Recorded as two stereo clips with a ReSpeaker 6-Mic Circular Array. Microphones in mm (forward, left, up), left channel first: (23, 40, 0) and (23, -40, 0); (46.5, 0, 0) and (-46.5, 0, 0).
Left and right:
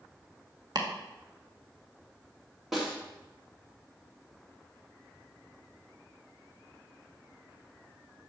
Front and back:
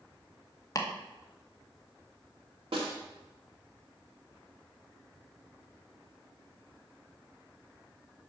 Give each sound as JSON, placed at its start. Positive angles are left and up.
{"t": 0.8, "sound": "chopping", "azimuth_deg": -55, "distance_m": 1.3}
{"t": 2.7, "sound": "a snare drum", "azimuth_deg": -175, "distance_m": 2.0}